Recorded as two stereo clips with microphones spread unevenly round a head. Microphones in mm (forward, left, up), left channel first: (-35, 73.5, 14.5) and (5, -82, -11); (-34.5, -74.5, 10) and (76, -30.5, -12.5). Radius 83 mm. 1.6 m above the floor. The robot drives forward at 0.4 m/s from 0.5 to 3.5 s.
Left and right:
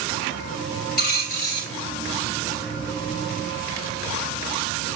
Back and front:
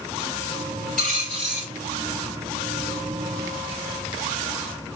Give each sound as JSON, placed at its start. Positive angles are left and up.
{"t": 1.0, "sound": "a dropped coin", "azimuth_deg": 120, "distance_m": 4.0}